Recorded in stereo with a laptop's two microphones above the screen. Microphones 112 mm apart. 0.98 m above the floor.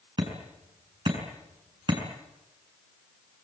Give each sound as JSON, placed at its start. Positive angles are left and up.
{"t": 0.2, "sound": "hammering", "side_deg": -45, "distance_m": 6.5}